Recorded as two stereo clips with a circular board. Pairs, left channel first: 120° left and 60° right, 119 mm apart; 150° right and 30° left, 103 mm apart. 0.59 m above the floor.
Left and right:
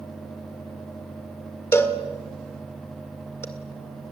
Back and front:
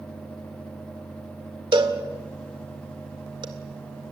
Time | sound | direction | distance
1.7 | a cowbell | 55° left | 2 m